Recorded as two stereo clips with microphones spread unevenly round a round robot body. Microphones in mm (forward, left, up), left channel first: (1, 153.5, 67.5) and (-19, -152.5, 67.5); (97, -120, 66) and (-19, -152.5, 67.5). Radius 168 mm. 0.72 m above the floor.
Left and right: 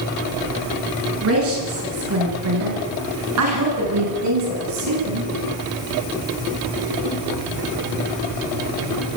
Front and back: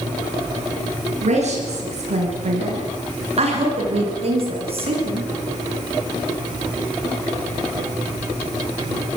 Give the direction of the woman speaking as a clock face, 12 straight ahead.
5 o'clock.